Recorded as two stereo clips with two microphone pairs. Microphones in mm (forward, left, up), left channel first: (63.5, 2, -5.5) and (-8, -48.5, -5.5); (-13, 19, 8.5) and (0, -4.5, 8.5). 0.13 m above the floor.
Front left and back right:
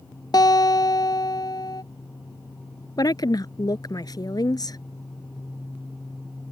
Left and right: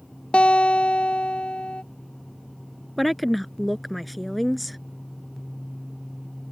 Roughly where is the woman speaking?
Ahead left.